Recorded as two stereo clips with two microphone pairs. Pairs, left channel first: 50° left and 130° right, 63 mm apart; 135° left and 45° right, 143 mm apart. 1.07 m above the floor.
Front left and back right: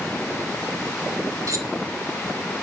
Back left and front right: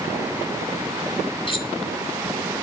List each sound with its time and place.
1.5 s cutlery clinking: 170° right, 2.5 m